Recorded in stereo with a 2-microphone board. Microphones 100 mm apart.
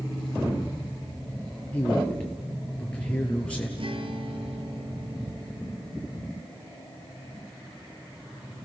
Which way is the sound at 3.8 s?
60° right (ahead or behind).